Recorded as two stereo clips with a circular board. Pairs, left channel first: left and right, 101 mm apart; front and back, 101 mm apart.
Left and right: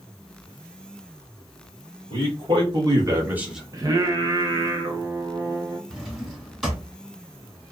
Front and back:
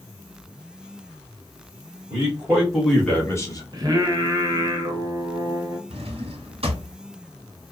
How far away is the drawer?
About 1.3 m.